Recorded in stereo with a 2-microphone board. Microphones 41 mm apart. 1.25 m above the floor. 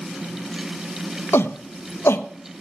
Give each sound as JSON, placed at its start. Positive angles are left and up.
{"t": 1.3, "sound": "a shout", "side_deg": 75, "distance_m": 0.7}